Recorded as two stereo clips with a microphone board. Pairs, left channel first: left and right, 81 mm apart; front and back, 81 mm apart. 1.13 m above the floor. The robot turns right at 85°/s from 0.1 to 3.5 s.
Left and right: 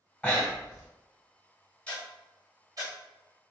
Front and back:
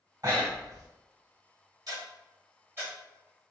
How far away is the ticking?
About 1.6 m.